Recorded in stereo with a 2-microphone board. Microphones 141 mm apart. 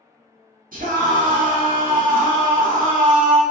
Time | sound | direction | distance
0.7 | a scream | 75° right (ahead or behind) | 1.6 m